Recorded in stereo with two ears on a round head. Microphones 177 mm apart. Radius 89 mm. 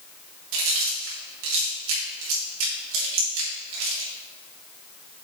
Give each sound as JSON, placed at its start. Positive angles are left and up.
{"t": 0.5, "sound": "chewing", "side_deg": -75, "distance_m": 3.5}